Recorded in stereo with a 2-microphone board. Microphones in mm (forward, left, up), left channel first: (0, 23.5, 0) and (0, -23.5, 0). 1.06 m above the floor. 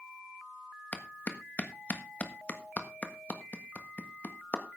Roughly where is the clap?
Left.